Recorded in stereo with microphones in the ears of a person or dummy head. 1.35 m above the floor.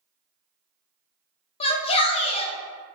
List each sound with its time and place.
1.6 s a shout: 30° left (ahead or behind), 0.5 m